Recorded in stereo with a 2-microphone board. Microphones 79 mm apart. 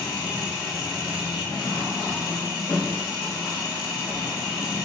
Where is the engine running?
60° left (ahead or behind), 1.6 m.